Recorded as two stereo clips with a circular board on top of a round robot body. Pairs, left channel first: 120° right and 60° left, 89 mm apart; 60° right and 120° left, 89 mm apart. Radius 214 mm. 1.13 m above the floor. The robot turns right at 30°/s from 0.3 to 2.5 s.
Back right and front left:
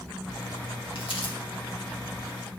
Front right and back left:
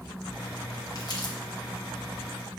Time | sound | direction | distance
0.9 | crumpling | 110° right | 1.6 m